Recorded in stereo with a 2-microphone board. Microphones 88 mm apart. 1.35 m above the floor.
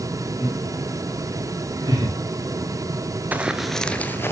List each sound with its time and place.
0.4 s laughter: 35° right (ahead or behind), 4.5 m; by 2.1 s 55° right (ahead or behind), 4.5 m
3.3 s running footsteps: 20° right (ahead or behind), 1.3 m; by 4.3 s 30° left (ahead or behind), 1.8 m